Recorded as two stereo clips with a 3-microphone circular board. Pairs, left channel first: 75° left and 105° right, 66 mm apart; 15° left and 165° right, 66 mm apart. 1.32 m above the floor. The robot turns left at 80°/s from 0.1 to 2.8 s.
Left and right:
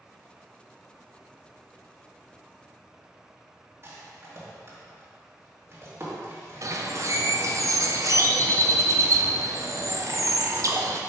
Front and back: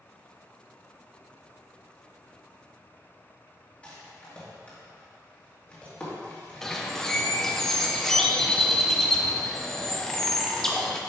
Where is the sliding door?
I don't hear a sliding door.